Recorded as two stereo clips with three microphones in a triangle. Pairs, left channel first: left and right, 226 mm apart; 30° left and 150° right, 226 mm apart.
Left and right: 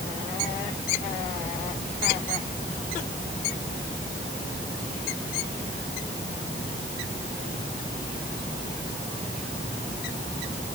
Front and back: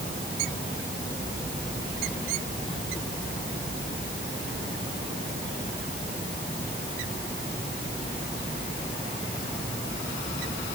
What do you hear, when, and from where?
Only background noise.